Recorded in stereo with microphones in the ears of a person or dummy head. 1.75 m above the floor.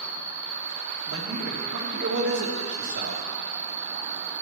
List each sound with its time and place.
0.0 s an insect: 80° right, 1.5 m
1.1 s a man speaking: 70° right (ahead or behind), 2.5 m